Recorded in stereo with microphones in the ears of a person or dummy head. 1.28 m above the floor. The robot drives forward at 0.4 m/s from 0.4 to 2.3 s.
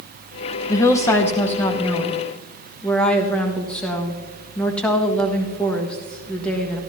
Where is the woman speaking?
20° left (ahead or behind), 0.8 m; by 6.8 s 10° left (ahead or behind), 1.4 m.